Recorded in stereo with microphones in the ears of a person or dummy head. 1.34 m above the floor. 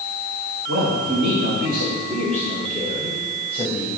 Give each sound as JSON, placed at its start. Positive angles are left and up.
{"t": 0.7, "sound": "a man speaking", "side_deg": -70, "distance_m": 1.9}